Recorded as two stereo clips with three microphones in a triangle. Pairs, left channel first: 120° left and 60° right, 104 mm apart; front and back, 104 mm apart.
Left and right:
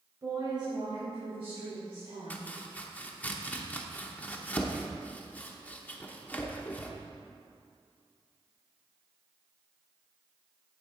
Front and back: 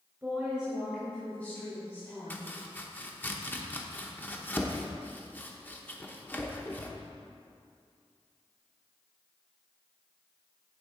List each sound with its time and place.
0.2 s a woman speaking: 110° right, 2.5 m; by 2.5 s 55° right, 3.5 m
2.3 s chopping: 55° left, 0.9 m